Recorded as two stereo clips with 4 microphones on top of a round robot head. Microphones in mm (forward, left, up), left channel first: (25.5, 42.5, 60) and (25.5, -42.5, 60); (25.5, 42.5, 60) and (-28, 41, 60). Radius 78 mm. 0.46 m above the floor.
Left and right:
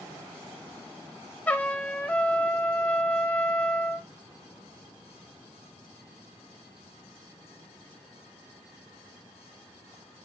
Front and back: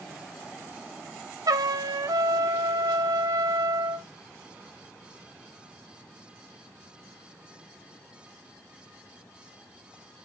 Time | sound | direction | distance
1.5 | a trumpet | 165° left | 0.7 m